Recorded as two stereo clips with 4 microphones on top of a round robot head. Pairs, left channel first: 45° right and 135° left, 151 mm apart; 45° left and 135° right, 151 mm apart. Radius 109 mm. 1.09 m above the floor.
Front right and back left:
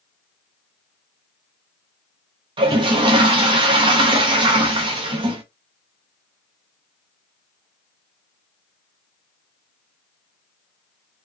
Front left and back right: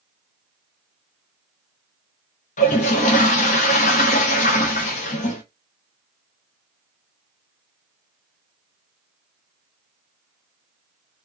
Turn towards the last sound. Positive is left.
turn(degrees=80)